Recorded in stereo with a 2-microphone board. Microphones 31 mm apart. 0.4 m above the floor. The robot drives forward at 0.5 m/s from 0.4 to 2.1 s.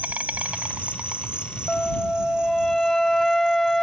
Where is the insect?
60° right (ahead or behind); by 3.8 s 30° right (ahead or behind).